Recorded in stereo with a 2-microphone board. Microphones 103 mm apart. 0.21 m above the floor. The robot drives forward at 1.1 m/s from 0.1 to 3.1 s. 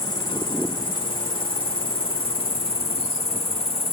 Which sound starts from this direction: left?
An insect, at 0.0 s.